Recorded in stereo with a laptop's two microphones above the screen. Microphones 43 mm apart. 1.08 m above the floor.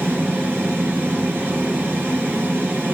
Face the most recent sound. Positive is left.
turn(degrees=-60)  # may be behind; listen again after turning